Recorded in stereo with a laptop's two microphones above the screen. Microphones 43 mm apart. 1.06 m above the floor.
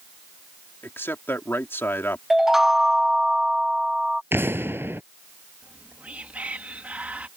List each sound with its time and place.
0.8 s a man speaking: 70° left (ahead or behind)
2.3 s a chime: 10° right (ahead or behind)
4.3 s an explosion: 65° right (ahead or behind)
5.6 s whispering: 35° right (ahead or behind)